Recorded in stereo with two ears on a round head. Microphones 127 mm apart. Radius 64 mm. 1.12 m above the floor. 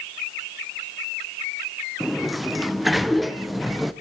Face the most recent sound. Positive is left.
turn(degrees=0)  # may be behind; listen again after turning